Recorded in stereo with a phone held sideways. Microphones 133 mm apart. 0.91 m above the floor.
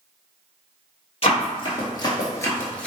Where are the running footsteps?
45° left (ahead or behind), 1.4 m; by 2.9 s 10° left (ahead or behind), 0.8 m.